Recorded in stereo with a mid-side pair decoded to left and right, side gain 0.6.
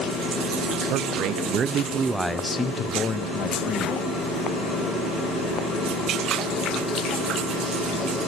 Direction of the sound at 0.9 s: 70° right.